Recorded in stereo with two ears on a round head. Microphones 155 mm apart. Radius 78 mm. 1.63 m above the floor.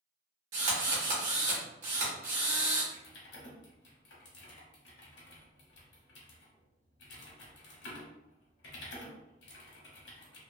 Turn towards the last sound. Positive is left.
turn(degrees=75)  # may be behind; listen again after turning